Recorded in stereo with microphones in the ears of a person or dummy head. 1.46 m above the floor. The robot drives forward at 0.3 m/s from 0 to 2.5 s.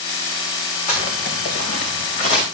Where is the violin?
No violin in this recording.